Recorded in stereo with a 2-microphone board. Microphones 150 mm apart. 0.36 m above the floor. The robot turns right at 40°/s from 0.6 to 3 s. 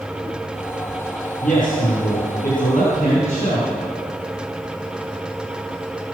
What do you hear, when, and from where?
1.4 s a man speaking: 65° left, 5 m; by 3.7 s 130° left, 5 m